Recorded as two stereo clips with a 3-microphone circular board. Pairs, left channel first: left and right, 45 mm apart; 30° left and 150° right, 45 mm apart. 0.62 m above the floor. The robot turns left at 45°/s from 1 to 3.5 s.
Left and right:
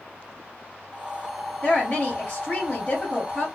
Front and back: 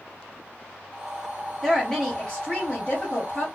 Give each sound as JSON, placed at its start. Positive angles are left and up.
{"t": 1.6, "sound": "a woman speaking", "azimuth_deg": 115, "distance_m": 1.3}